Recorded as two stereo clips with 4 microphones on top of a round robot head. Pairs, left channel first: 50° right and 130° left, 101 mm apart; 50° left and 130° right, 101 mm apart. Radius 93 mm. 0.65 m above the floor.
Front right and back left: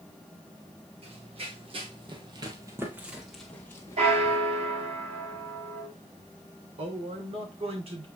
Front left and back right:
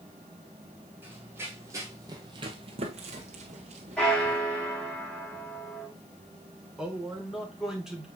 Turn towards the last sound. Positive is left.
turn(degrees=145)